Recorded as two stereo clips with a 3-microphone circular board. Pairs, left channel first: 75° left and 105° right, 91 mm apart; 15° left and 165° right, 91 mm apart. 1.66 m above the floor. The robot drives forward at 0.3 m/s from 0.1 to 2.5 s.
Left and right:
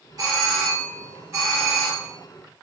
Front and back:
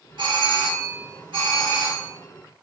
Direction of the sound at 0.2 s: 145° right.